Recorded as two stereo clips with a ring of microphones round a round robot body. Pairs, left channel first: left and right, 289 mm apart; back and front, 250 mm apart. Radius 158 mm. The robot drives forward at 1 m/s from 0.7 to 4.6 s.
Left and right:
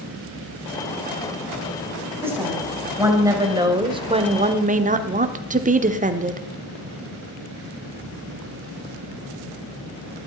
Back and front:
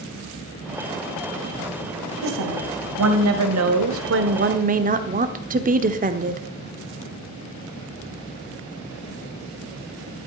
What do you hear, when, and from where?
2.2 s a woman speaking: 10° right, 3 m; by 6.4 s 40° right, 0.9 m